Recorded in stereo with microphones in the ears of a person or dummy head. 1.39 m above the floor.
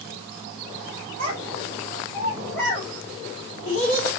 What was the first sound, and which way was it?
A child speaking, 40° right (ahead or behind).